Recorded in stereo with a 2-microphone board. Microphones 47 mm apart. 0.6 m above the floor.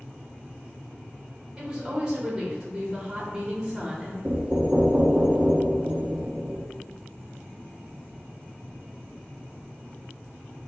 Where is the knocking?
25° right (ahead or behind), 0.9 m.